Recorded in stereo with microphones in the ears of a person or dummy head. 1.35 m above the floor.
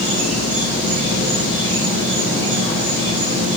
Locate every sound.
0.0 s an insect: 40° right (ahead or behind), 3.5 m